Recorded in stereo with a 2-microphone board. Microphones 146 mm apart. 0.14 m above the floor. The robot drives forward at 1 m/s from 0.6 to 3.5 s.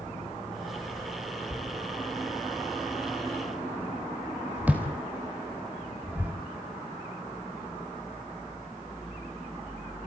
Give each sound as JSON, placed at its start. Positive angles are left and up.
{"t": 1.5, "sound": "a thud", "side_deg": -5, "distance_m": 5.0}